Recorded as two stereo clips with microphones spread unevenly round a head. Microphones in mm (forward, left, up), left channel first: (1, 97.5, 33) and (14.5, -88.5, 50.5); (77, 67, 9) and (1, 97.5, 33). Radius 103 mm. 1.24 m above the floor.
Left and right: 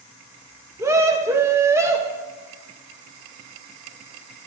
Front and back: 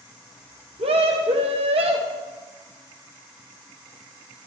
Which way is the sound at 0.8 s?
165° right.